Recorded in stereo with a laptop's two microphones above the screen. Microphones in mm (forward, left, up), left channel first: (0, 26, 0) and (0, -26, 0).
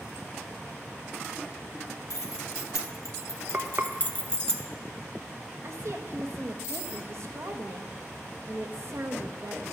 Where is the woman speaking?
60° right (ahead or behind), 1.5 m.